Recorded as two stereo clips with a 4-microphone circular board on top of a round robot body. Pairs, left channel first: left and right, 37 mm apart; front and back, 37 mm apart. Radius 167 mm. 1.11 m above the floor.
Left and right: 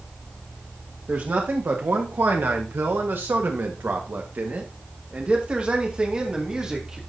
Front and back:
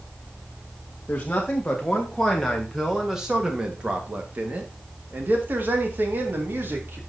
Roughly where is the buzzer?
I don't hear a buzzer.